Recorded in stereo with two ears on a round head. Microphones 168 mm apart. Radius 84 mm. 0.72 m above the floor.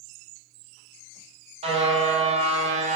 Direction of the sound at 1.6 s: 35° right (ahead or behind).